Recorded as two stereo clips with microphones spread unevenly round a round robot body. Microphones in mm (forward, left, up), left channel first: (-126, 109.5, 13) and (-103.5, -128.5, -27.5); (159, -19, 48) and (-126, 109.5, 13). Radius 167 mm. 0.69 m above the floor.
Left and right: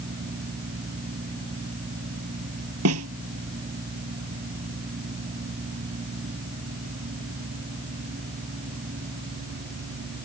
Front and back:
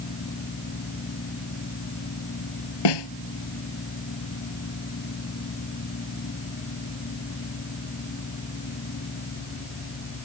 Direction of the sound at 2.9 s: 35° right.